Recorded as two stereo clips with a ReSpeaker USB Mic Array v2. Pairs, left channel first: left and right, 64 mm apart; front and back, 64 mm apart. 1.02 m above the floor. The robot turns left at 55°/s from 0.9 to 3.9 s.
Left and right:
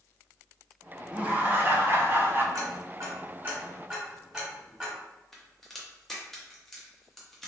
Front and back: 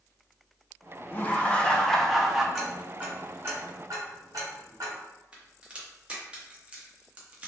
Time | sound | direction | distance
1.1 | laughter | 35° right | 0.5 m
2.5 | ticking | 95° right | 1.0 m
5.3 | a crack | 170° left | 0.6 m